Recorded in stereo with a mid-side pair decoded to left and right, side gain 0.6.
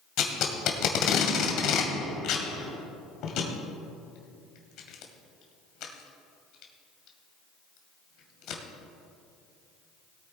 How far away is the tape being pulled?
About 2 m.